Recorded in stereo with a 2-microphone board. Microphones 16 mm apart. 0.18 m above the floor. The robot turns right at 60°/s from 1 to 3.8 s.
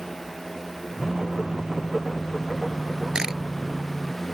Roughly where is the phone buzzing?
Behind right.